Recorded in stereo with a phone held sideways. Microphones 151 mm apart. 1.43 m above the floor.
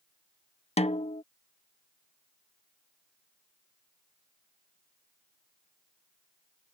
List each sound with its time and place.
0.8 s a snare drum: 45° left (ahead or behind)